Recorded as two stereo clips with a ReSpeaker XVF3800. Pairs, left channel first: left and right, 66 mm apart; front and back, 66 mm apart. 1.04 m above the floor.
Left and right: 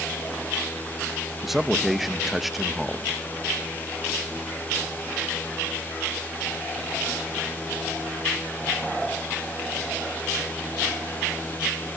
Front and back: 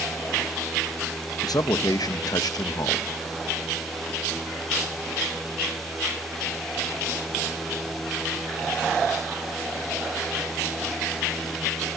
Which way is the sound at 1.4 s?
Straight ahead.